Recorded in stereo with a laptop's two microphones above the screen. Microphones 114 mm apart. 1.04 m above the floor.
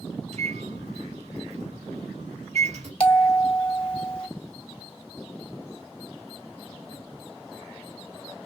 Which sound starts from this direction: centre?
A bell, at 3.0 s.